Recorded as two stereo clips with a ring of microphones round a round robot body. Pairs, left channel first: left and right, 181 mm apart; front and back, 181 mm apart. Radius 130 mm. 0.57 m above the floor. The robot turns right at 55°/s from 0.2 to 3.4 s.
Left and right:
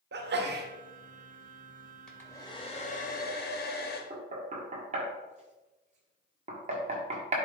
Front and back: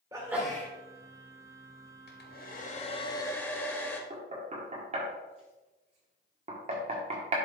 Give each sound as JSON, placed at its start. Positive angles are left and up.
{"t": 0.1, "sound": "a sneeze", "azimuth_deg": -105, "distance_m": 1.5}
{"t": 2.1, "sound": "a hair dryer", "azimuth_deg": 5, "distance_m": 2.0}
{"t": 4.1, "sound": "knocking", "azimuth_deg": -135, "distance_m": 1.4}